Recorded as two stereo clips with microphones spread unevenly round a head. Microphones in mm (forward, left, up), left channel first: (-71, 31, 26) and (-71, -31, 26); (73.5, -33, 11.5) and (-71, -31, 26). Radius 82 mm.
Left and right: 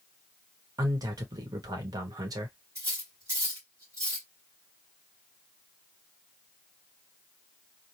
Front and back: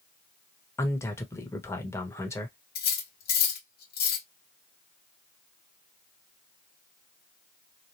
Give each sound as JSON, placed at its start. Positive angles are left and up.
{"t": 0.8, "sound": "a man speaking", "azimuth_deg": -70, "distance_m": 1.3}
{"t": 2.8, "sound": "cutlery clinking", "azimuth_deg": -20, "distance_m": 1.2}